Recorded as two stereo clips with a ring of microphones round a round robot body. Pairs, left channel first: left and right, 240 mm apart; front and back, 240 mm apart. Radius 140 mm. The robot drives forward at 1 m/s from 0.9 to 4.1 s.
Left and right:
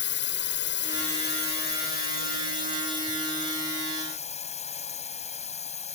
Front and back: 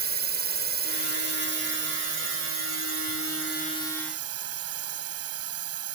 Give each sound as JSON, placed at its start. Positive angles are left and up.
{"t": 0.0, "sound": "a drone", "azimuth_deg": 135}